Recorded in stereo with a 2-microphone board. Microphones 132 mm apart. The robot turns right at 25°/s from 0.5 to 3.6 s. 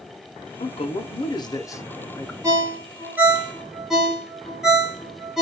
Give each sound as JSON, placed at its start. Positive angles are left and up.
{"t": 0.6, "sound": "a man speaking", "azimuth_deg": 125, "distance_m": 0.6}
{"t": 2.4, "sound": "a ringtone", "side_deg": -25, "distance_m": 1.0}